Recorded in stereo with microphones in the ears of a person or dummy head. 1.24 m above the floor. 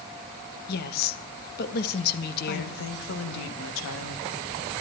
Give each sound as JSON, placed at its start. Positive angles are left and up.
{"t": 0.7, "sound": "a woman speaking", "side_deg": 55, "distance_m": 1.4}
{"t": 2.5, "sound": "a woman speaking", "side_deg": 70, "distance_m": 2.5}